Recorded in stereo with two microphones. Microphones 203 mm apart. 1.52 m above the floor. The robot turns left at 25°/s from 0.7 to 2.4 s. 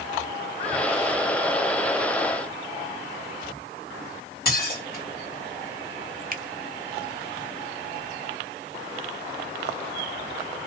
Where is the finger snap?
45° right (ahead or behind), 0.6 m.